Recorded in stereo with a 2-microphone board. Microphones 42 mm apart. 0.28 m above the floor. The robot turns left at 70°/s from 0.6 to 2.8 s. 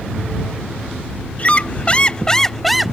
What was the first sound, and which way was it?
A squeak, 95° left.